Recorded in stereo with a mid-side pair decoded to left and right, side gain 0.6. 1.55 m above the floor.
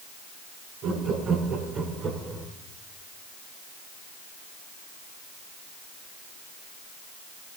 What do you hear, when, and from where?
0.8 s laughter: 60° right, 5.5 m; by 2.5 s 35° right, 4 m